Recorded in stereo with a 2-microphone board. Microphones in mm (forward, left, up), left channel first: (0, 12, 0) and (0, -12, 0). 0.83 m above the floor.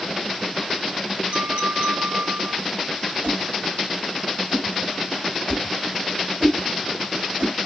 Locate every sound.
1.3 s a clink: 70° right (ahead or behind), 3.5 m
3.2 s a whoosh: 60° right (ahead or behind), 2 m